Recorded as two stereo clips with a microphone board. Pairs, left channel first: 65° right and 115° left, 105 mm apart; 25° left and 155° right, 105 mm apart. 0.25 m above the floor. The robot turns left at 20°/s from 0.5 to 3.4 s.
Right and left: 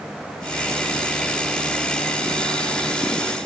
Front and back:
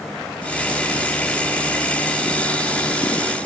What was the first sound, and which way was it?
Only background noise.